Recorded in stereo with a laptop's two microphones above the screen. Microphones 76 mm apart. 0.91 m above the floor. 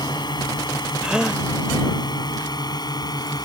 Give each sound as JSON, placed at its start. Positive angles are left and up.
{"t": 0.0, "sound": "a drone", "side_deg": 75}
{"t": 1.0, "sound": "a gasp", "side_deg": -10}